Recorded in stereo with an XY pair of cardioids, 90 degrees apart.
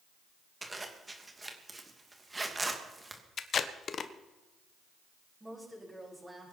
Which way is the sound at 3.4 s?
55° left.